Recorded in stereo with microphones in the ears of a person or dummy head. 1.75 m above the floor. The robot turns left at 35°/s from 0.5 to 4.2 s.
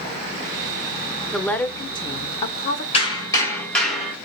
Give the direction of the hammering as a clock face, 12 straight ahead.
11 o'clock.